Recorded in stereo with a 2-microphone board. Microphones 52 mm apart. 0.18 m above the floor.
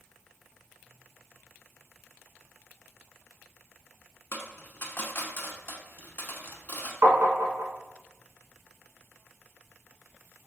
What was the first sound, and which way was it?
A dropped coin, 45° left (ahead or behind).